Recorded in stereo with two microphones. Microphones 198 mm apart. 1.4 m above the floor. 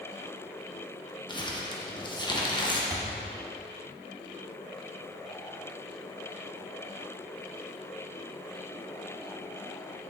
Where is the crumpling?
25° left (ahead or behind), 1.1 m.